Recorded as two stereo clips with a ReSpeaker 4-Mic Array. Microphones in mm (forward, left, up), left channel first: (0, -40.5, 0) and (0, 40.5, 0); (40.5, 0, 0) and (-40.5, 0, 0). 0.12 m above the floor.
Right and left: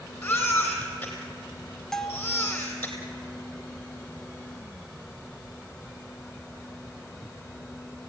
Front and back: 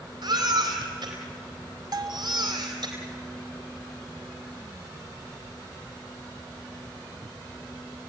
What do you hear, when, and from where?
0.2 s a baby crying: 160° right, 3.5 m
1.9 s a bell: 175° right, 1.2 m